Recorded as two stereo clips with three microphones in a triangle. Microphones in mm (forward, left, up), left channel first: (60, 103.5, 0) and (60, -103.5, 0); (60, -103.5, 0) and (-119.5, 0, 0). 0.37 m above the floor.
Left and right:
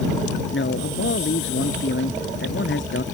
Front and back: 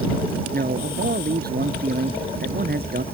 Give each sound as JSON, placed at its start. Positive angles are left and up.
{"t": 0.5, "sound": "a man speaking", "azimuth_deg": 110}